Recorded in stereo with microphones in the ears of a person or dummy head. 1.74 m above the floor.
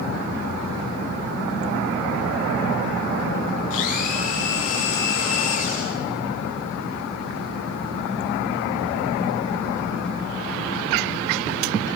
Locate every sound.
3.7 s a blender: 45° left (ahead or behind), 6 m